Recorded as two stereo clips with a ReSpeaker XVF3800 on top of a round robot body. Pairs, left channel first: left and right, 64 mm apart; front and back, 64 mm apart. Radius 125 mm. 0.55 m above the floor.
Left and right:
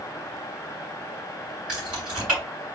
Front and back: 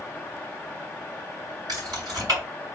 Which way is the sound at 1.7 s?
165° right.